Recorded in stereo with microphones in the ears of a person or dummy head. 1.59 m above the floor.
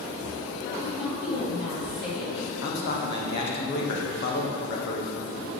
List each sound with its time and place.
0.8 s a woman speaking: 55° left (ahead or behind), 2 m
2.6 s a man speaking: 55° left (ahead or behind), 1.1 m